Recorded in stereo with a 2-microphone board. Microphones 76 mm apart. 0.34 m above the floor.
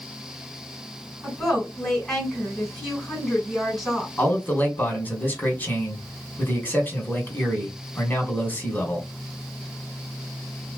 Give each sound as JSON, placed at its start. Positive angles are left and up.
{"t": 1.2, "sound": "a woman speaking", "side_deg": -5, "distance_m": 2.5}
{"t": 4.2, "sound": "a man speaking", "side_deg": 25, "distance_m": 1.4}